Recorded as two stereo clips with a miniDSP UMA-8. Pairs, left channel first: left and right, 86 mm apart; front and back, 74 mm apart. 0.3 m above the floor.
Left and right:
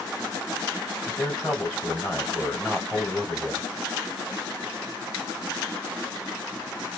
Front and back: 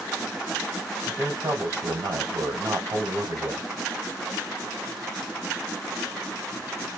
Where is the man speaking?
165° left, 1.7 m.